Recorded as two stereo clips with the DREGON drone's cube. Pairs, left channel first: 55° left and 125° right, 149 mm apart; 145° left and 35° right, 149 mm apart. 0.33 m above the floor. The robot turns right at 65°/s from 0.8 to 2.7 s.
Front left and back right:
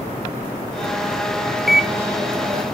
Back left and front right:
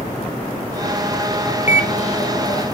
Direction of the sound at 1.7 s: 145° left.